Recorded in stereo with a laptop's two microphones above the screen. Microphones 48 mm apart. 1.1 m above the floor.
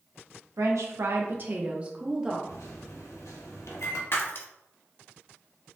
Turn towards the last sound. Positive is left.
turn(degrees=50)  # may be behind; listen again after turning